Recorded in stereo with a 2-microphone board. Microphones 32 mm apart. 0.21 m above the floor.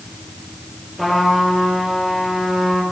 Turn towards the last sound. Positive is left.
turn(degrees=-5)  # may be behind; listen again after turning